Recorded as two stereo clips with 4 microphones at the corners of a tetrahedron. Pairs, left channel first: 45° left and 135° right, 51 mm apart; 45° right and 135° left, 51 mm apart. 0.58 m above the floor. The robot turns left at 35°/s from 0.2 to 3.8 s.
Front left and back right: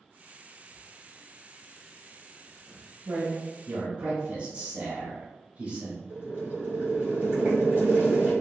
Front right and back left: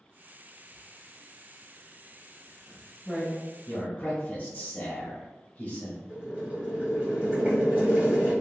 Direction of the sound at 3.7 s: 80° right.